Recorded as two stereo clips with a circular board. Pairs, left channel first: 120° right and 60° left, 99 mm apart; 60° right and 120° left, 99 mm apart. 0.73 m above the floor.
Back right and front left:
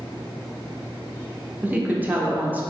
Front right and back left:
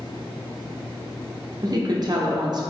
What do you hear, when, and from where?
1.6 s a woman speaking: 125° left, 0.6 m